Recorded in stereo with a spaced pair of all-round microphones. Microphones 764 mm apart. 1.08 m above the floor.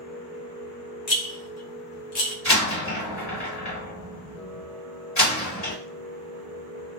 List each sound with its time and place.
0.0 s a machine running: 90° left, 1.6 m
1.1 s a rattle: 60° left (ahead or behind), 1.1 m
2.5 s a door slam: 55° left (ahead or behind), 1.9 m